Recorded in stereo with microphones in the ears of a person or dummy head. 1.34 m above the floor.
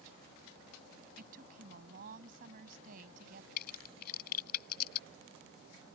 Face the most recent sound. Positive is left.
turn(degrees=60)  # may be behind; listen again after turning